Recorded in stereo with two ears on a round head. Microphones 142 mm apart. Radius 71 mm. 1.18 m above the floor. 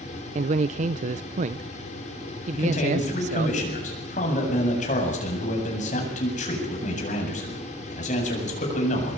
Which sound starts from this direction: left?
A man speaking, at 2.5 s.